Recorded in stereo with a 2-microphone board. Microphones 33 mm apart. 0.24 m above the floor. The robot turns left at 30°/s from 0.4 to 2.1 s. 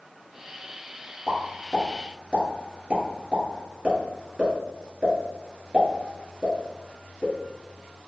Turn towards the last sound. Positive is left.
turn(degrees=-25)  # may be behind; listen again after turning